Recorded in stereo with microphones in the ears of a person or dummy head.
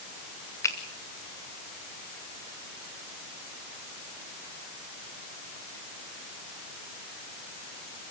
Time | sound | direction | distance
0.6 | a finger snap | 20° left (ahead or behind) | 1.5 m